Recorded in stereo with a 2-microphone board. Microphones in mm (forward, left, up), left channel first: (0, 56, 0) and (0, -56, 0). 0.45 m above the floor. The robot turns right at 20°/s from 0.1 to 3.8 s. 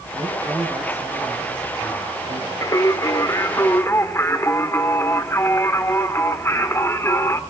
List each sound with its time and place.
0.1 s a man speaking: 10° left, 5.5 m; by 2.5 s 60° left, 5.5 m
2.6 s singing: 30° left (ahead or behind), 1.5 m; by 7.4 s 25° left (ahead or behind), 1.5 m